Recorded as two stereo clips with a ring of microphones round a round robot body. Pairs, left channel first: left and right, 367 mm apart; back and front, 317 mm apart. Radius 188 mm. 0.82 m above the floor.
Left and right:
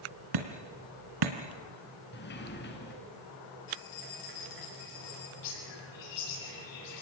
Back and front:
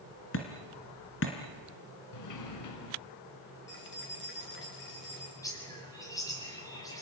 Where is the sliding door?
155° left, 3 m.